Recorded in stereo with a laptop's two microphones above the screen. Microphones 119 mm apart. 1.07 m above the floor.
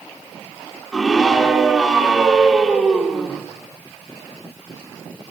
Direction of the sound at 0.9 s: 5° right (ahead or behind).